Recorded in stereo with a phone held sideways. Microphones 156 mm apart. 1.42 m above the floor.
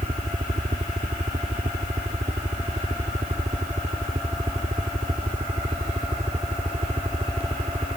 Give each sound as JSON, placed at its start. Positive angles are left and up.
{"t": 0.0, "sound": "a helicopter", "side_deg": -50}